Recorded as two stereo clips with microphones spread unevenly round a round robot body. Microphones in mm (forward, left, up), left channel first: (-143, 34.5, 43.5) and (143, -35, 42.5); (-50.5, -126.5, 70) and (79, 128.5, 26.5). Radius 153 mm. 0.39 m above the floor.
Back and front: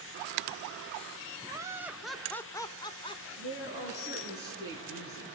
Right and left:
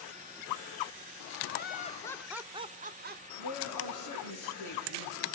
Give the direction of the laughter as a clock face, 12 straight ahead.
3 o'clock.